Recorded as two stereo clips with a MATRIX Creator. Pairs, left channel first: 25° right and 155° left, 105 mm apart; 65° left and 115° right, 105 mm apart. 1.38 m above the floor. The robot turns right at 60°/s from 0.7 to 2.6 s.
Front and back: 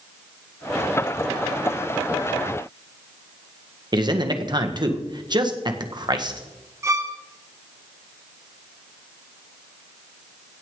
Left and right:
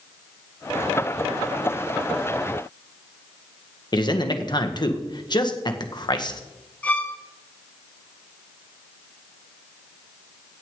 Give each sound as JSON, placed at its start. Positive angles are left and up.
{"t": 3.9, "sound": "a man speaking", "azimuth_deg": 110, "distance_m": 1.6}
{"t": 6.8, "sound": "a violin", "azimuth_deg": 130, "distance_m": 1.1}